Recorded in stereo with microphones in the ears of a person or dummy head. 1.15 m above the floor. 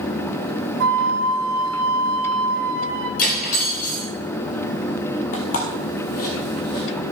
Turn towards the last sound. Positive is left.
turn(degrees=55)  # may be behind; listen again after turning